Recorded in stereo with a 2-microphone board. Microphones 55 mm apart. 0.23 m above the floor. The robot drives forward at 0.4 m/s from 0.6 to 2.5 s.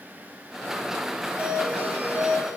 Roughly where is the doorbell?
Right.